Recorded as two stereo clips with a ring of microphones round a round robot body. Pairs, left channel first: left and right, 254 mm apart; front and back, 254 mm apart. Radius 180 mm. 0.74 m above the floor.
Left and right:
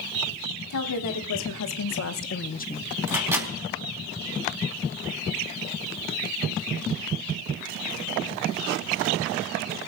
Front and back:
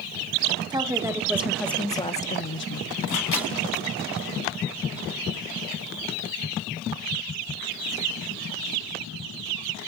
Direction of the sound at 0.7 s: 105° left.